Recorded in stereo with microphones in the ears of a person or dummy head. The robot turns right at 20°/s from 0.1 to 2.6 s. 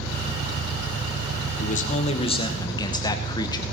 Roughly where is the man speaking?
Left.